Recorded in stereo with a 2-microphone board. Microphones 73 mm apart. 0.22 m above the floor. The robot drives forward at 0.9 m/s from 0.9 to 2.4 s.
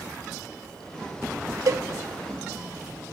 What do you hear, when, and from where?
1.7 s a cowbell: 50° right (ahead or behind), 0.6 m; by 1.8 s 55° right (ahead or behind), 0.6 m